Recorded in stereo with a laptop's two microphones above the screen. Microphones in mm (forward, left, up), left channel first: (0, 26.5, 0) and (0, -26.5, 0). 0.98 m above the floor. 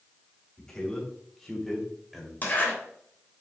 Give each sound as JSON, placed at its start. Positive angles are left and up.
{"t": 0.6, "sound": "a man speaking", "side_deg": 10, "distance_m": 4.0}
{"t": 2.4, "sound": "a zipper", "side_deg": 35, "distance_m": 3.0}